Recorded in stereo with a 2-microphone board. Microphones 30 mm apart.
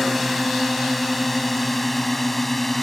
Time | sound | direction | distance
0.0 | a drone | 5° left (ahead or behind) | ?